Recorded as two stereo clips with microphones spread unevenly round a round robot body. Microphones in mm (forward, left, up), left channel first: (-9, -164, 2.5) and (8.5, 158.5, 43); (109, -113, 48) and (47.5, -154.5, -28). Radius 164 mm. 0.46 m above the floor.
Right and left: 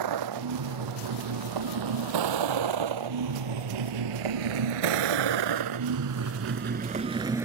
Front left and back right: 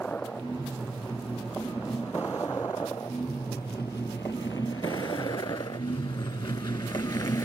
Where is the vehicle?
115° left; by 7.5 s 5° left.